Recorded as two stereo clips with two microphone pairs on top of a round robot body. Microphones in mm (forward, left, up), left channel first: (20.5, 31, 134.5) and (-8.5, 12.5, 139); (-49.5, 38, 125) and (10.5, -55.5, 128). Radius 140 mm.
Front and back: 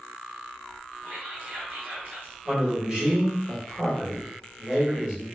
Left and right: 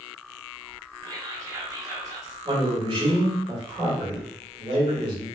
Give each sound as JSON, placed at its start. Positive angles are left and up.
{"t": 1.0, "sound": "whispering", "azimuth_deg": -110, "distance_m": 1.4}
{"t": 2.5, "sound": "a man speaking", "azimuth_deg": -80, "distance_m": 1.6}